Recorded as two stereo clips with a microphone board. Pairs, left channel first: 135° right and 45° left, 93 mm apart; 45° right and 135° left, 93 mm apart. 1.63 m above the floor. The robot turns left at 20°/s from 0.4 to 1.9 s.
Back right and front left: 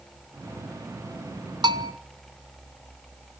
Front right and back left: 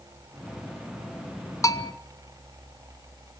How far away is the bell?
About 0.9 m.